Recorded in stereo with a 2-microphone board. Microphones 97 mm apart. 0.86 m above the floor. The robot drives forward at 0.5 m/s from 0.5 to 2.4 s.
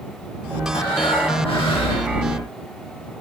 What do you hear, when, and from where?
0.7 s breathing: 80° left, 5 m; by 2.1 s 70° left (ahead or behind), 5 m